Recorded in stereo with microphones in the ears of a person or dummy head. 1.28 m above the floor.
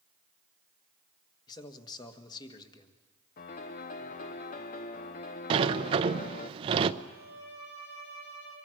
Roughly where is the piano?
Left.